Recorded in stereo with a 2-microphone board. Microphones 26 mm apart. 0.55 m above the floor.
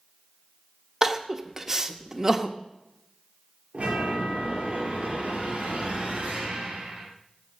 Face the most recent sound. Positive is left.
turn(degrees=-50)  # may be behind; listen again after turning